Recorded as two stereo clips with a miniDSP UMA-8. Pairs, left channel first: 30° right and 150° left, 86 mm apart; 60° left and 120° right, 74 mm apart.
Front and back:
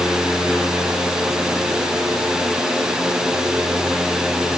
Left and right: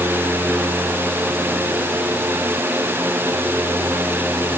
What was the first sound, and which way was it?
Only background noise.